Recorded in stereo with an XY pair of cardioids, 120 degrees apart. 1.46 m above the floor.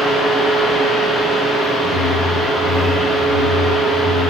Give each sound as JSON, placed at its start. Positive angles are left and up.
{"t": 0.0, "sound": "a fan", "azimuth_deg": 25, "distance_m": 1.1}
{"t": 1.8, "sound": "a whoosh", "azimuth_deg": -50, "distance_m": 0.5}